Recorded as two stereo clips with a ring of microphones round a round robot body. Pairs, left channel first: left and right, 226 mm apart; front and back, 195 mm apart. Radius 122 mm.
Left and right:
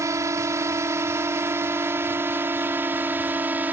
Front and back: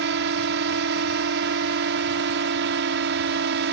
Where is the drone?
165° right; by 3.7 s 170° right.